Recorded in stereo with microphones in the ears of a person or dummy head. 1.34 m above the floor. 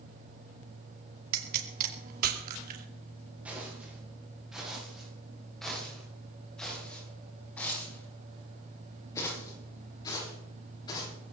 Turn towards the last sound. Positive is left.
turn(degrees=25)  # may be behind; listen again after turning